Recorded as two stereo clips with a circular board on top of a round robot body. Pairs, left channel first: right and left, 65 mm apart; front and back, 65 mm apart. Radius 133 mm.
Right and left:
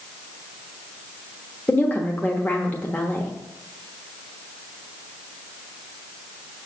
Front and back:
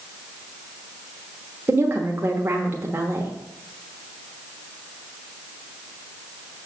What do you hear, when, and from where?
1.7 s a woman speaking: 145° right, 1.3 m